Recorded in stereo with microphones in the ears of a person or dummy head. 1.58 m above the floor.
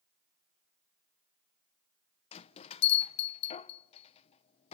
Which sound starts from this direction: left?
A bell, at 2.3 s.